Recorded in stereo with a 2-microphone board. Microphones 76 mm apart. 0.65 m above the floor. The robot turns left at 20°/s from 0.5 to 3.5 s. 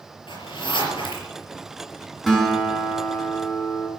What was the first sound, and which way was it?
A zipper, 80° left.